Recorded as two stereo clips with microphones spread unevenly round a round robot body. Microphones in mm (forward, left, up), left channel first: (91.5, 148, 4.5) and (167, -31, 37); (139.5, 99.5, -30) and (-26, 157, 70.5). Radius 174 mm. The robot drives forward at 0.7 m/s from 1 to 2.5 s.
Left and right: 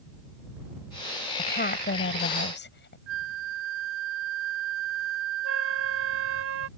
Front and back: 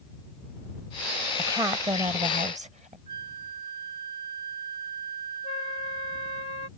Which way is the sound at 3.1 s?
95° right.